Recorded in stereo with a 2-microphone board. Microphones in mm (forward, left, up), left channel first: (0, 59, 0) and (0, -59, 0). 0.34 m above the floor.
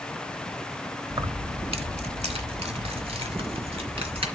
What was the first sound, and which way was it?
Keys jangling, 35° right (ahead or behind).